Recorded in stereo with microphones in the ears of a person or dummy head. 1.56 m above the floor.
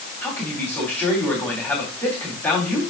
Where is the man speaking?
15° left (ahead or behind), 4 m.